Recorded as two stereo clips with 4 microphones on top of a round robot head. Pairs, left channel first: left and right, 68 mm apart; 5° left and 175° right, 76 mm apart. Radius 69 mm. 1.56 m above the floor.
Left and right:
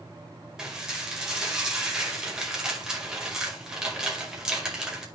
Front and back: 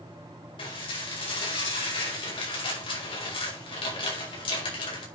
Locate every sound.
0.6 s dishes clattering: 10° right, 4.5 m